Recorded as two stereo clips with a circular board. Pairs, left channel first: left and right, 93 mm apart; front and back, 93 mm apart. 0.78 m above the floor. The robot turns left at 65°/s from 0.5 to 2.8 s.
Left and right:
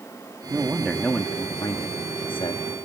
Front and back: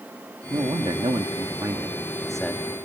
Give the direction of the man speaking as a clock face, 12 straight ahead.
5 o'clock.